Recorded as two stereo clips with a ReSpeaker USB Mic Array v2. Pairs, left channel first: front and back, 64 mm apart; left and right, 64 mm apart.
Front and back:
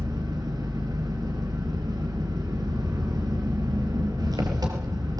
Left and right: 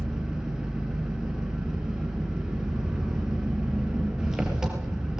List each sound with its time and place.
0.0 s an engine running: 170° right, 5 m